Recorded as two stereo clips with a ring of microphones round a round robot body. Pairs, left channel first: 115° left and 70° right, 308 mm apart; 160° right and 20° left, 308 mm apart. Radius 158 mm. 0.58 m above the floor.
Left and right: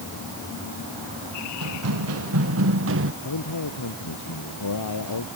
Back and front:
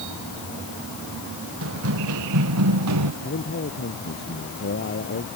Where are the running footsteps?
25° right; by 3.1 s 15° right.